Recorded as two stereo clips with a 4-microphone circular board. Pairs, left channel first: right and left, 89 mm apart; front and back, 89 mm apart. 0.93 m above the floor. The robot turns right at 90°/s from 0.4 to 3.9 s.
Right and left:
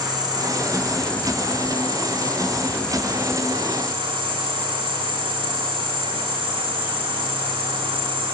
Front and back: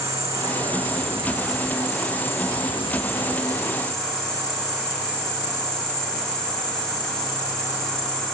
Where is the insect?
125° left, 6 m; by 8.3 s 80° left, 6 m.